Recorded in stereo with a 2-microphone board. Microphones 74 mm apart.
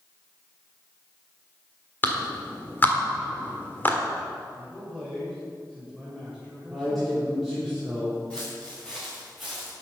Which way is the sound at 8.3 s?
10° left (ahead or behind).